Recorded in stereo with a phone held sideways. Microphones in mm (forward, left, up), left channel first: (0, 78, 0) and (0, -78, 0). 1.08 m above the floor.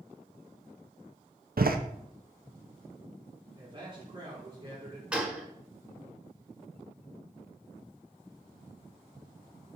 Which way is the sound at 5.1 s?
10° right (ahead or behind).